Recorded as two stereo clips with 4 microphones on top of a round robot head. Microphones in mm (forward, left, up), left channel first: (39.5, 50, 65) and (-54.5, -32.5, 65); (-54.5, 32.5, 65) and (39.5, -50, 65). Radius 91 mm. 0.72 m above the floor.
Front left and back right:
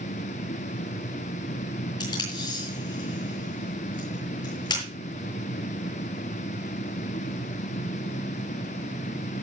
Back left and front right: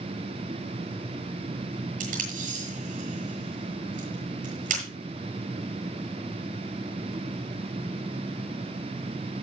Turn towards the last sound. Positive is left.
turn(degrees=-15)